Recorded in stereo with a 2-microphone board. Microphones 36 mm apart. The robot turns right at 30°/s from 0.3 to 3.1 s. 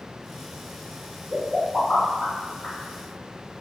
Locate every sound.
1.3 s a pop: centre (ahead or behind), 1.2 m; by 2.8 s 25° left (ahead or behind), 1.2 m